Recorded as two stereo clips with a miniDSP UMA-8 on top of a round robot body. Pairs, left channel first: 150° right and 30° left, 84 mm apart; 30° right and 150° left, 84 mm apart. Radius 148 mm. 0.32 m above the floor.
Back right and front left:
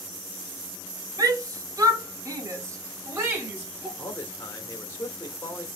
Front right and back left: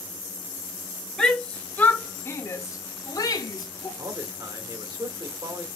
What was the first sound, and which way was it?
A shout, 55° left.